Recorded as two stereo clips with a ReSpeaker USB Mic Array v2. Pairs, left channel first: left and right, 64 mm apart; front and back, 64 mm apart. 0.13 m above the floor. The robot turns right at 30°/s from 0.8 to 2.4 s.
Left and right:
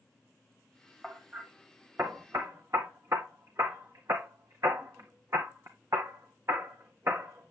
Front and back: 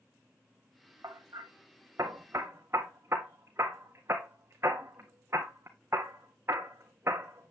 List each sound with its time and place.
1.0 s hammering: 175° right, 1.7 m; by 7.5 s 130° right, 1.7 m